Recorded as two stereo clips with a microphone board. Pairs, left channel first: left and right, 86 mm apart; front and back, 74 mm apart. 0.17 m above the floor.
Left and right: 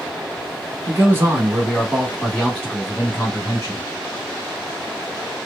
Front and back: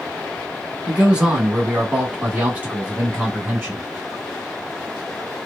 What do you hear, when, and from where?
0.9 s a man speaking: 110° right, 1.4 m; by 3.8 s 120° left, 1.5 m